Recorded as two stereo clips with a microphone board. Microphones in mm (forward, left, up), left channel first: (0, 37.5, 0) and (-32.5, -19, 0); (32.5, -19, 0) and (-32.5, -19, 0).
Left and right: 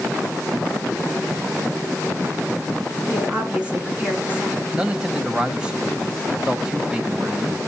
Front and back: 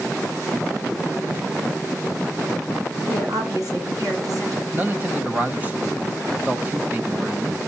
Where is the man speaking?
Straight behind, 1.2 m.